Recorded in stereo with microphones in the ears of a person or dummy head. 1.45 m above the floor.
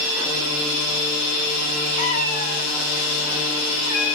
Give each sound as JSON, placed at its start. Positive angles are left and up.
{"t": 2.0, "sound": "a cat meowing", "side_deg": 40, "distance_m": 2.0}